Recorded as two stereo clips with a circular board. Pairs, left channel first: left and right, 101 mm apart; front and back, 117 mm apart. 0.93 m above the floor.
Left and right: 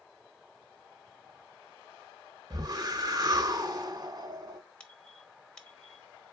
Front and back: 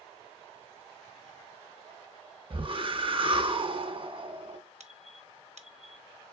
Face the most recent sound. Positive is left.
turn(degrees=170)